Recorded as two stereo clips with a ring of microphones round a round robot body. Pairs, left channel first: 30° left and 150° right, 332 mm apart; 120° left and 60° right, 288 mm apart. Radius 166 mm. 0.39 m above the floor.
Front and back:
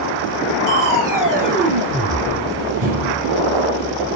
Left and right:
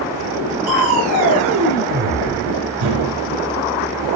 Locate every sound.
0.7 s crushing: 85° right, 1.1 m